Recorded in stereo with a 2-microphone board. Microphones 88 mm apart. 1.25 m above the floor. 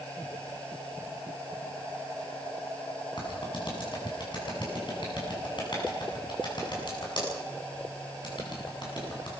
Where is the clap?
55° left (ahead or behind), 8 m.